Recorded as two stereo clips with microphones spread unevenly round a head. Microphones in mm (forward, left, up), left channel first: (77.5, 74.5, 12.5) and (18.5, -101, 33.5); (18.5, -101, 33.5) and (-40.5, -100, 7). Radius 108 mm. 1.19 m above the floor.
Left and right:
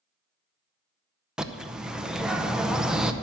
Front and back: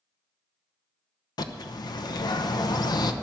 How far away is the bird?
About 0.8 m.